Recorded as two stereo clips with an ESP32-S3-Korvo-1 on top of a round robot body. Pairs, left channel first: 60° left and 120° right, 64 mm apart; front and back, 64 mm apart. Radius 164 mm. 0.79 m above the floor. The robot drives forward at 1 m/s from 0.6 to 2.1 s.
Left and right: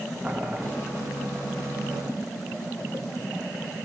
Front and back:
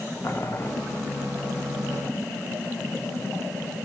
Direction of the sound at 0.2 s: 50° right.